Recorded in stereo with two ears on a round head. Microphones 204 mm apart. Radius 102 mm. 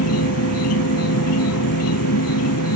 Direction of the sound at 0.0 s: 75° left (ahead or behind).